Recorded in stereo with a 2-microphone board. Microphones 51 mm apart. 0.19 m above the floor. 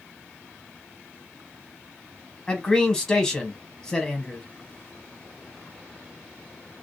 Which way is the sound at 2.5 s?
15° left (ahead or behind).